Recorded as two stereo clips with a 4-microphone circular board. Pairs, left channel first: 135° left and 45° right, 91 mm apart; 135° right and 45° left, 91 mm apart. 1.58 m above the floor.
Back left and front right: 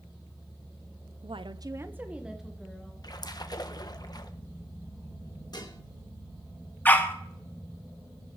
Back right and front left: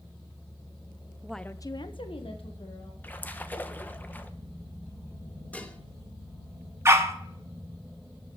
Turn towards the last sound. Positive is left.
turn(degrees=80)